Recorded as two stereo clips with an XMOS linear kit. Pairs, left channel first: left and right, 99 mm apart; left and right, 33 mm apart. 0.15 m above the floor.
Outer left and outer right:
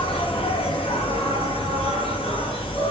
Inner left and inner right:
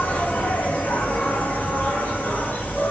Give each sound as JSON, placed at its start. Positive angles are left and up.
{"t": 0.0, "sound": "an insect", "side_deg": 70, "distance_m": 3.0}